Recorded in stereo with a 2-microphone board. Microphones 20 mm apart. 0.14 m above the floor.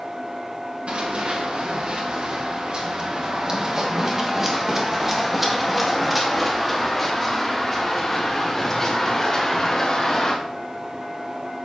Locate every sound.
0.9 s running footsteps: 70° right (ahead or behind), 3 m; by 10.3 s 20° left (ahead or behind), 5 m